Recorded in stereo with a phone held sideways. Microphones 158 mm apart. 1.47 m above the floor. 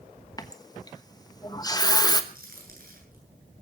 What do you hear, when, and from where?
0.4 s a running tap: 25° left (ahead or behind), 1.2 m
2.3 s a crack: 65° right (ahead or behind), 9.5 m